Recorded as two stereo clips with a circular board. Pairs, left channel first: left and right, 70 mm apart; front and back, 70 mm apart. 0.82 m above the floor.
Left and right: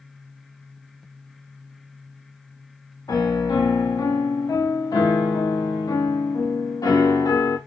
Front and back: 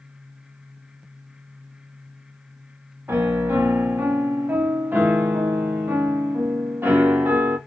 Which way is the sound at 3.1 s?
120° left.